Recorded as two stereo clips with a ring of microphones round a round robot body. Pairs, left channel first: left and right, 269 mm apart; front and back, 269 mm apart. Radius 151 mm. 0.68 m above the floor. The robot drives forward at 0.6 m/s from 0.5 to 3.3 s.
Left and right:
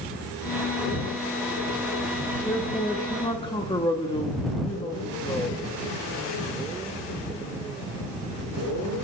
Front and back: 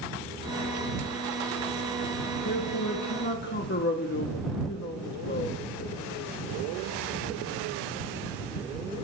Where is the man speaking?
15° left, 1.8 m; by 5.6 s 25° left, 1.5 m.